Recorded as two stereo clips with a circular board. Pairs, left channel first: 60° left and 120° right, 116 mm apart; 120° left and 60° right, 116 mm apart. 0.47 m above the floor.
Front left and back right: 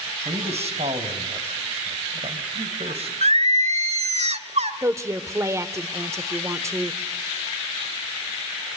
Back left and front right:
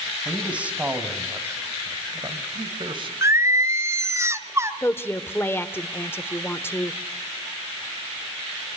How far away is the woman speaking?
About 1.1 m.